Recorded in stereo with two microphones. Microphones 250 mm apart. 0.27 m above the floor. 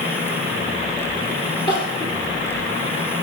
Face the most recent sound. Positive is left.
turn(degrees=45)  # may be behind; listen again after turning